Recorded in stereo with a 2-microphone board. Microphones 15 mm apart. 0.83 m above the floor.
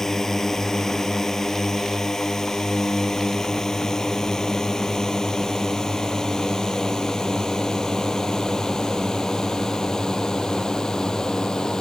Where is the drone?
20° left (ahead or behind); by 11.8 s 40° left (ahead or behind).